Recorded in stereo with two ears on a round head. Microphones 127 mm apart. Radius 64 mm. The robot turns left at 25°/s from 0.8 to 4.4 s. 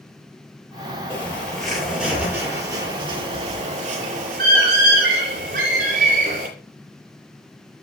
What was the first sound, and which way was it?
A bird, 20° left (ahead or behind).